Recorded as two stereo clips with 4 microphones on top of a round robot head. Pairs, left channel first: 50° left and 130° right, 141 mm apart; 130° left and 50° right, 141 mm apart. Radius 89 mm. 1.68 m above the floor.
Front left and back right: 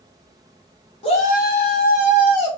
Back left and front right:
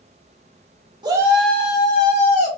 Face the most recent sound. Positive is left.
turn(degrees=95)